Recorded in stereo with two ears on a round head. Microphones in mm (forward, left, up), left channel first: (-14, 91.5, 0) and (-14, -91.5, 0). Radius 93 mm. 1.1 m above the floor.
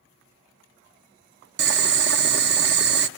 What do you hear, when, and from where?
1.6 s boiling: 55° right (ahead or behind), 0.8 m